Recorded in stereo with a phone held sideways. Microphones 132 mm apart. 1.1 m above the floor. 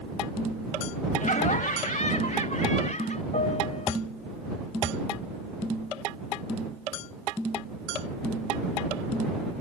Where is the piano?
70° left (ahead or behind).